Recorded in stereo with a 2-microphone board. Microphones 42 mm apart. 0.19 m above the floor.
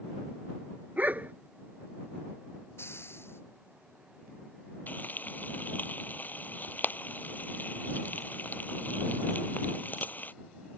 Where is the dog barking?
45° right (ahead or behind).